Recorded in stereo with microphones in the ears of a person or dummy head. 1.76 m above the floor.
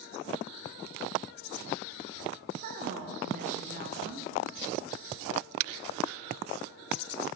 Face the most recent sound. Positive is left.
turn(degrees=-45)  # may be behind; listen again after turning